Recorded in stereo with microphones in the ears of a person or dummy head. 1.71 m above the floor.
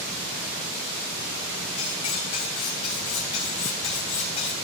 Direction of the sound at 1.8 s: 25° left (ahead or behind).